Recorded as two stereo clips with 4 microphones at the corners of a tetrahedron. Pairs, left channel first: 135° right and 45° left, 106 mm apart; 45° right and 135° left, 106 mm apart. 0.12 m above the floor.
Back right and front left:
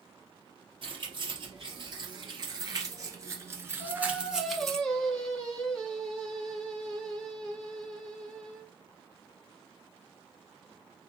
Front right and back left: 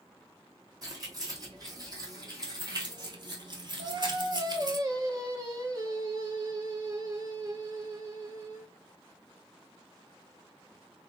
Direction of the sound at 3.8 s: 145° left.